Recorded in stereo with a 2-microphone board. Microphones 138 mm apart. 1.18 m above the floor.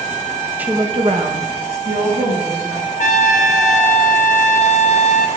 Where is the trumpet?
60° left (ahead or behind), 0.7 m.